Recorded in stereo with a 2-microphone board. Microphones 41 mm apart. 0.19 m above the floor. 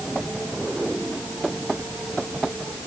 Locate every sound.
Only background noise.